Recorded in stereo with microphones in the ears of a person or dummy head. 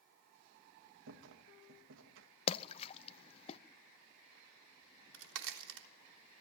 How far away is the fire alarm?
No fire alarm in this recording.